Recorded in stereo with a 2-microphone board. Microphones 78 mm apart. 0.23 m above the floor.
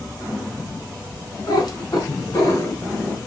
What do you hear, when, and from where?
1.5 s a cat meowing: 60° left (ahead or behind), 0.9 m; by 3.2 s 45° left (ahead or behind), 1.4 m